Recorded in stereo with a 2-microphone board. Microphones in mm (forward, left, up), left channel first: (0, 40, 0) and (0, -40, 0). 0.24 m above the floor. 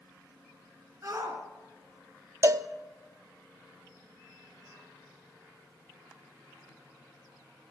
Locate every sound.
1.0 s a shout: 35° right (ahead or behind), 3 m
2.4 s a cowbell: 40° right (ahead or behind), 0.5 m